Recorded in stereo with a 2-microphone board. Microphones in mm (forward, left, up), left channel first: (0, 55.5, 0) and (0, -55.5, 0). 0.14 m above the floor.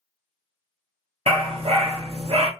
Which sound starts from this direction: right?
A dog barking, at 1.3 s.